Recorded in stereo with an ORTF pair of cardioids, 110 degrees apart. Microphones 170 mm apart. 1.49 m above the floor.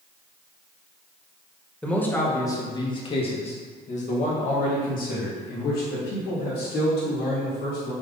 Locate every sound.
1.8 s a man speaking: 5° left, 1.9 m; by 7.9 s 80° left, 4 m